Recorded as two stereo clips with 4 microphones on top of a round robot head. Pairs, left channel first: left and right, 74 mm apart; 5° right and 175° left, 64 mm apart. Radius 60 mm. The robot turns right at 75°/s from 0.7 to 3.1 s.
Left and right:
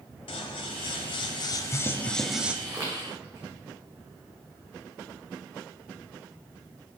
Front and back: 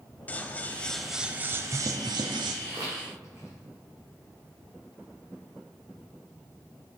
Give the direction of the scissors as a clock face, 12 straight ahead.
10 o'clock.